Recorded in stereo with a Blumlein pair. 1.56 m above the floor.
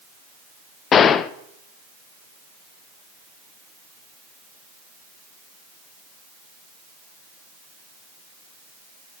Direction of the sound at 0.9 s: 25° left.